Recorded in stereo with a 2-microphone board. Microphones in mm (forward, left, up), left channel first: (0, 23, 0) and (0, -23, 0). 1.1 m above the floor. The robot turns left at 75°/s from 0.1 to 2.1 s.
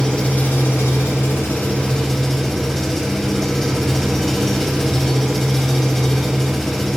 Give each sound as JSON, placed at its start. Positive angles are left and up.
{"t": 0.0, "sound": "an engine running", "azimuth_deg": 160, "distance_m": 4.0}